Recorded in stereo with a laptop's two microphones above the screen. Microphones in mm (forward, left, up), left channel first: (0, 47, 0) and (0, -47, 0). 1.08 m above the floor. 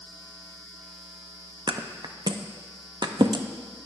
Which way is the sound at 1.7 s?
55° right (ahead or behind).